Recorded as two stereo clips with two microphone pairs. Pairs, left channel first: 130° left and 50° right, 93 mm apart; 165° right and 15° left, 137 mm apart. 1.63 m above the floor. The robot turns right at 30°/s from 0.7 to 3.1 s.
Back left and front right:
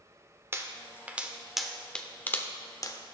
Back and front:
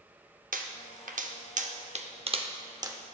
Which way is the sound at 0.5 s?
15° left.